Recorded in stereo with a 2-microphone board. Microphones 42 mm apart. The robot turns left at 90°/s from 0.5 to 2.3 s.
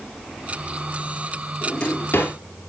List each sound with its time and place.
1.6 s a drawer: 5° left (ahead or behind), 3 m; by 2.3 s 65° left (ahead or behind), 3 m